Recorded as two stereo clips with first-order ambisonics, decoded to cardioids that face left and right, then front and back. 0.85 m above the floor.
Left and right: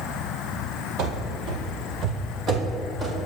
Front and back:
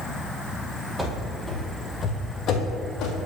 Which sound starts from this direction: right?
Running footsteps, at 1.0 s.